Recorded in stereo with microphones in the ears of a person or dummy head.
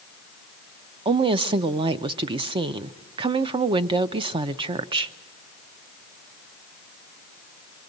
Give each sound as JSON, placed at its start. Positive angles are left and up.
{"t": 1.1, "sound": "a woman speaking", "side_deg": -25, "distance_m": 0.5}